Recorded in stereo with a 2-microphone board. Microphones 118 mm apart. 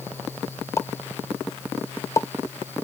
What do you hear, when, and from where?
0.8 s a pop: 25° left (ahead or behind)